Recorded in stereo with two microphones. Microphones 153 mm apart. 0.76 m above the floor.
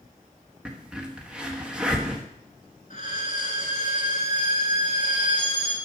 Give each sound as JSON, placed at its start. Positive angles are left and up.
{"t": 0.7, "sound": "a crack", "side_deg": -5, "distance_m": 1.1}
{"t": 2.9, "sound": "a violin", "side_deg": 55, "distance_m": 3.5}